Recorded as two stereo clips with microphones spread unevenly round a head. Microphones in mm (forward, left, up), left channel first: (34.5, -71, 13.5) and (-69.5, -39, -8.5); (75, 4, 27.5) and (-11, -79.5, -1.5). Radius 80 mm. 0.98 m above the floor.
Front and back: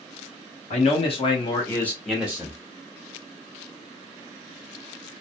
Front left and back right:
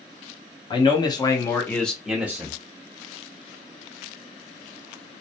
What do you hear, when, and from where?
0.7 s a man speaking: 5° right, 1.1 m; by 2.5 s 165° right, 0.9 m